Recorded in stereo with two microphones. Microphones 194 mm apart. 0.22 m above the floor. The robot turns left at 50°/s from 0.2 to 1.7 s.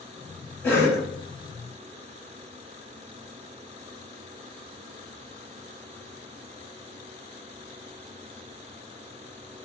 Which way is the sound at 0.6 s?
10° left (ahead or behind).